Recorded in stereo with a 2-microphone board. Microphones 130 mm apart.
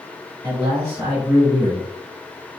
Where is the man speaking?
30° right (ahead or behind), 1.6 m.